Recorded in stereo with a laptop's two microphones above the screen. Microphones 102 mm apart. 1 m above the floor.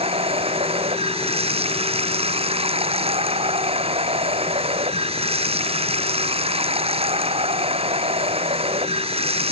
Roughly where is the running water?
Right.